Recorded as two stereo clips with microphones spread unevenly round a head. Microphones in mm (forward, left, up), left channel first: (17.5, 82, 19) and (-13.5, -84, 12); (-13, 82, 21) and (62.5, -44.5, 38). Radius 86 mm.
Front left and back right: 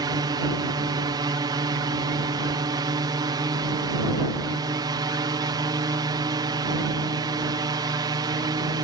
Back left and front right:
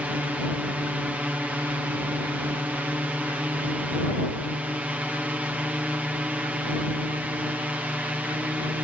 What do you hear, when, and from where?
0.0 s a drone: 140° right